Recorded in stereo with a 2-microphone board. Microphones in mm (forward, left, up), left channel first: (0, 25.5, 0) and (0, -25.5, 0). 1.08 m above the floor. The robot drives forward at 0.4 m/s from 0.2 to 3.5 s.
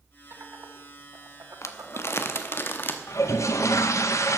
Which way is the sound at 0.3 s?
55° right (ahead or behind).